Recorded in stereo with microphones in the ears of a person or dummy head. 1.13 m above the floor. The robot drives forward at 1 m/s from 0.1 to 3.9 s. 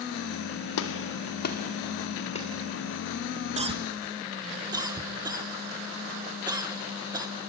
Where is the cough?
30° right (ahead or behind), 0.7 m; by 7.3 s 20° right (ahead or behind), 1.0 m.